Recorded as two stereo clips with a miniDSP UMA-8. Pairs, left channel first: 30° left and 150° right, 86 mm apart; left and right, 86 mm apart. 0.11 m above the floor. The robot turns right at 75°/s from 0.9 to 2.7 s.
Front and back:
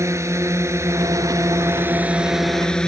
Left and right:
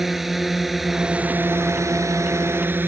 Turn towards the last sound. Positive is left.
turn(degrees=-45)